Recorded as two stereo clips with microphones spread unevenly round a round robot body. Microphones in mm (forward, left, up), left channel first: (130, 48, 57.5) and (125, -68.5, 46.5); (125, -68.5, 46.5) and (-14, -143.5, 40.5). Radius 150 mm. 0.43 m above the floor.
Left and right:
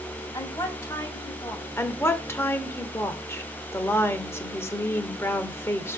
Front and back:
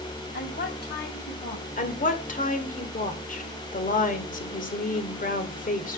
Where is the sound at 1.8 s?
20° left, 1.8 m.